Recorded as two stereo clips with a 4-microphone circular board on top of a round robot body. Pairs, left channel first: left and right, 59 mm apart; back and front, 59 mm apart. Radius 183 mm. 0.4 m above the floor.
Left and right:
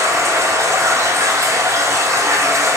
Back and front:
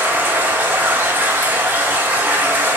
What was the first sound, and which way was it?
Running water, 60° right.